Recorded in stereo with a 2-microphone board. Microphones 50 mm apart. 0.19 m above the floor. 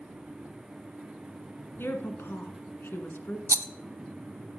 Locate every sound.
1.8 s a woman speaking: 50° left (ahead or behind), 1.8 m
3.5 s a rattle: 45° right (ahead or behind), 0.5 m